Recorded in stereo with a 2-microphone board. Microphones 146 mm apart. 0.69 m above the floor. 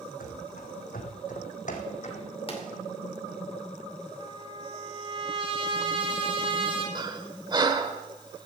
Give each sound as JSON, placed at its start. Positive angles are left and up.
{"t": 0.2, "sound": "running footsteps", "side_deg": 70, "distance_m": 2.0}
{"t": 2.5, "sound": "a pop", "side_deg": 40, "distance_m": 2.5}
{"t": 4.2, "sound": "a trumpet", "side_deg": -40, "distance_m": 3.0}
{"t": 7.0, "sound": "breathing", "side_deg": -30, "distance_m": 0.9}